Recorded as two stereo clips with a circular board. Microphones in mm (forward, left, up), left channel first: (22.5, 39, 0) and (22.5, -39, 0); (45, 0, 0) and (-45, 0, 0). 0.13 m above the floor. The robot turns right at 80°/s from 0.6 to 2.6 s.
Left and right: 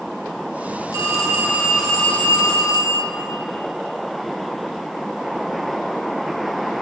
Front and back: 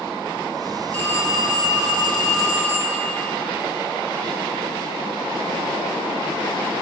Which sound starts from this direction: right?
A phone ringing, at 0.9 s.